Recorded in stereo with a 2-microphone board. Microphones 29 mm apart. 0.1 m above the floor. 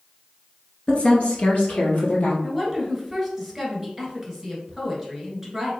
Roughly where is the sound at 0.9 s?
Left.